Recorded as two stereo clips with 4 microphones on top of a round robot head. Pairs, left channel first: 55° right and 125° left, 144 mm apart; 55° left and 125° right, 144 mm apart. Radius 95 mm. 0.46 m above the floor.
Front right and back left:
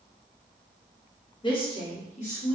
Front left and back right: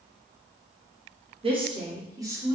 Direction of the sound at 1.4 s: 95° right.